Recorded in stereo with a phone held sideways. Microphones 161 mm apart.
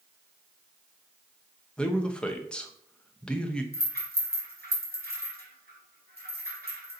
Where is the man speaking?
5° left (ahead or behind), 0.8 m.